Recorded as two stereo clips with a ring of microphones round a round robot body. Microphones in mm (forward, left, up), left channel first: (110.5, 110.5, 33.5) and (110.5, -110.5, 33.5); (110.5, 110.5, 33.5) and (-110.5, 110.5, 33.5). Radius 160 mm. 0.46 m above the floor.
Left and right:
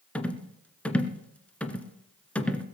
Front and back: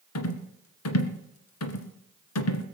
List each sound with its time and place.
0.1 s a rattle: 5° left, 1.6 m